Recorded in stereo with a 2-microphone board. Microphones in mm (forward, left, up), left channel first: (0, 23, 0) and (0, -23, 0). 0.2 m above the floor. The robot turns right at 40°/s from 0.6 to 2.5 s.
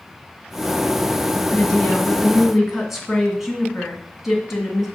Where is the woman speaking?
145° left, 2 m; by 4.9 s 175° right, 2 m.